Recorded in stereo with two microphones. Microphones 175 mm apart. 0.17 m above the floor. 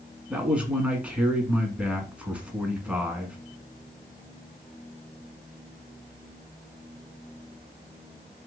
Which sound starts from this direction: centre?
A man speaking, at 0.3 s.